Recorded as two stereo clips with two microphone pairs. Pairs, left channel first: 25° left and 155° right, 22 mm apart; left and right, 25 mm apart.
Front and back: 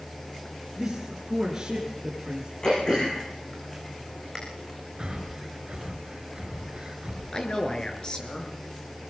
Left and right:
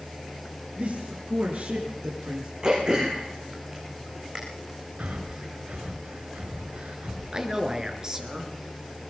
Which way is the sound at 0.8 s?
70° right.